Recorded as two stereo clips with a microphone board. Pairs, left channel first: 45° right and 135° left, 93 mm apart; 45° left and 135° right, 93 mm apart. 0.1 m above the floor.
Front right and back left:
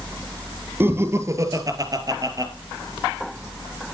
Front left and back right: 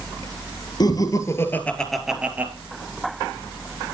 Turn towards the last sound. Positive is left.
turn(degrees=165)